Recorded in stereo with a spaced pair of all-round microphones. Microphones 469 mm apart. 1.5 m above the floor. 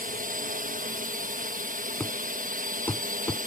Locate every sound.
0.0 s a drone: 15° right (ahead or behind)
2.0 s a thud: 5° left (ahead or behind)